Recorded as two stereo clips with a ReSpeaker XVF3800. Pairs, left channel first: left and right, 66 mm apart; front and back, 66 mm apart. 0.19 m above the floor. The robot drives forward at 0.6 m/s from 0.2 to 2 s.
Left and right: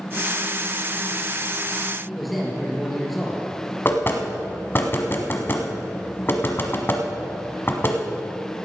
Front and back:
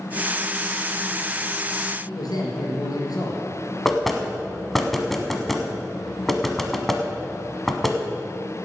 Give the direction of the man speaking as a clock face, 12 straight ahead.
12 o'clock.